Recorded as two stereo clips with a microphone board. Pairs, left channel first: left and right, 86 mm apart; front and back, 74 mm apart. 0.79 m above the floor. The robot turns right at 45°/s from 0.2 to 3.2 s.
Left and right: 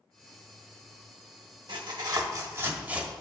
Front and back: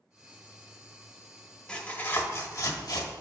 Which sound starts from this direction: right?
Tearing paper, at 1.7 s.